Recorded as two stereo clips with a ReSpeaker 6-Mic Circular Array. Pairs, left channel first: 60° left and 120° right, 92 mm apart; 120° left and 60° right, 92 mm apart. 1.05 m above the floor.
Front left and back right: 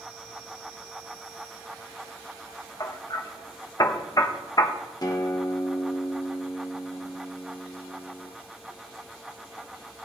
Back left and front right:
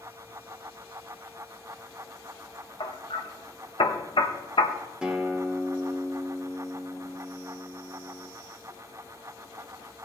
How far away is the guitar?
About 1.1 m.